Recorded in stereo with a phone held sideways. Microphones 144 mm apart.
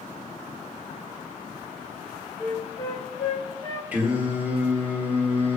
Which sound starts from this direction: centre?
Singing, at 3.9 s.